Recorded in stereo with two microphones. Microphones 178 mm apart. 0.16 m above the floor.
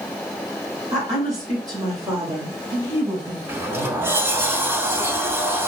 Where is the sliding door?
15° right (ahead or behind), 0.7 m.